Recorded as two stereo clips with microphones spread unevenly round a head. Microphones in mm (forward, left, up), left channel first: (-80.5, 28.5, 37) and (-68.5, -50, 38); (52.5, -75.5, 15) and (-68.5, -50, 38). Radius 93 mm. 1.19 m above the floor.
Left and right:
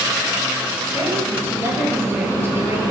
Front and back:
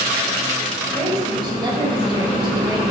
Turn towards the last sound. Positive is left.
turn(degrees=-140)